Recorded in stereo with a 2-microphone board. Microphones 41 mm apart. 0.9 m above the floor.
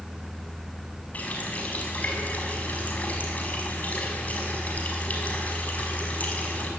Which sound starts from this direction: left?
A running tap, at 1.1 s.